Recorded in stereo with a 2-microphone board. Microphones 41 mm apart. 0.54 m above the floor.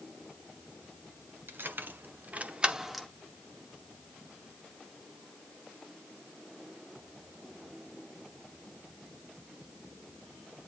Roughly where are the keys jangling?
Right.